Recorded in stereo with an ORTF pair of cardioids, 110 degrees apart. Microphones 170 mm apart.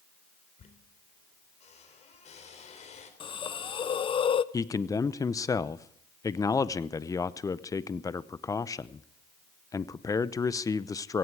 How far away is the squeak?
About 3.5 m.